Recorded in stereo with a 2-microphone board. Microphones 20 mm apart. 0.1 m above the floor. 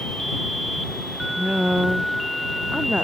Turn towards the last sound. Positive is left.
turn(degrees=-65)  # may be behind; listen again after turning